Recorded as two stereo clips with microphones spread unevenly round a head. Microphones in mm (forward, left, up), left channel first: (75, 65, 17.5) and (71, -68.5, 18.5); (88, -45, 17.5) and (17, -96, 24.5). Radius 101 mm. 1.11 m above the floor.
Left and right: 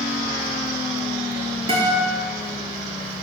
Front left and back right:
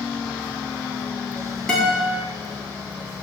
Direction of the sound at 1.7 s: 45° right.